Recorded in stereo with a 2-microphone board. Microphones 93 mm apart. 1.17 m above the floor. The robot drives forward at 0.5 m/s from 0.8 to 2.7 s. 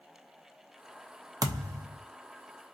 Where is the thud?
40° right (ahead or behind), 0.6 m.